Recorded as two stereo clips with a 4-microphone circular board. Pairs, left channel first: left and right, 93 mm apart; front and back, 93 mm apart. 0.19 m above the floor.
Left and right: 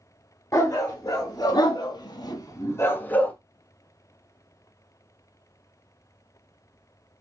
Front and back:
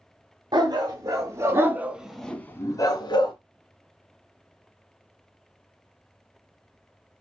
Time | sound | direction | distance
0.5 | a dog barking | 145° left | 1.3 m